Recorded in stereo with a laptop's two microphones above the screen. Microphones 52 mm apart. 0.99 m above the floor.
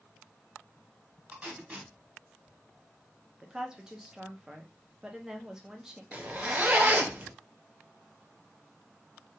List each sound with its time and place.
1.3 s tape being pulled: 25° right (ahead or behind), 1.0 m
3.4 s a woman speaking: 10° right (ahead or behind), 0.6 m
6.1 s a zipper: 30° right (ahead or behind), 0.5 m